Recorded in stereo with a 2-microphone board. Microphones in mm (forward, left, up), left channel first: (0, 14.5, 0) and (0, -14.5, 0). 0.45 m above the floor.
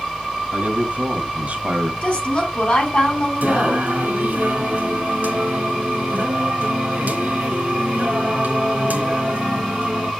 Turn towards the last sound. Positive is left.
turn(degrees=-75)  # may be behind; listen again after turning